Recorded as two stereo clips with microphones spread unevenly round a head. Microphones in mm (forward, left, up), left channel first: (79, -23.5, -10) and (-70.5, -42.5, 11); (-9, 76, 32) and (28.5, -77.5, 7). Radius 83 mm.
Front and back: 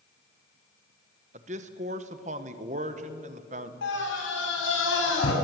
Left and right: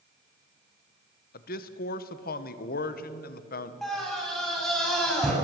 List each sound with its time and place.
1.3 s a man speaking: 135° left, 1.1 m
3.8 s a scream: 15° left, 7 m